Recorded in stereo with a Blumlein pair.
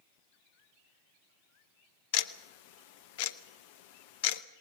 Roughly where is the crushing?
I don't hear crushing.